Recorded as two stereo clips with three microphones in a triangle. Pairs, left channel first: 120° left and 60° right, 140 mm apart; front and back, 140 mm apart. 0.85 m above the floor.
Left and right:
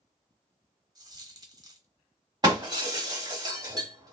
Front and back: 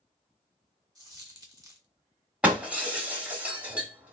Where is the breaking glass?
105° right, 0.9 m.